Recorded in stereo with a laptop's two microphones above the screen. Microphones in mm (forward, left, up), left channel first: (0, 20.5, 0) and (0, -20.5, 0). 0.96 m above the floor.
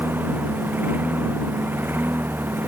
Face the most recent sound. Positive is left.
turn(degrees=-60)  # may be behind; listen again after turning